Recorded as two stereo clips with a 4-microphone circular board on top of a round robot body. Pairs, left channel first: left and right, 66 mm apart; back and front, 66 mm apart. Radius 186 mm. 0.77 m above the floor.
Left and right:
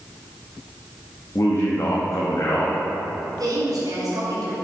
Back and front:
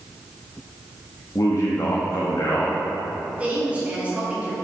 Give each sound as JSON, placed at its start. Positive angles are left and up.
{"t": 1.4, "sound": "a man speaking", "azimuth_deg": 135, "distance_m": 1.4}
{"t": 3.4, "sound": "a woman speaking", "azimuth_deg": -70, "distance_m": 3.0}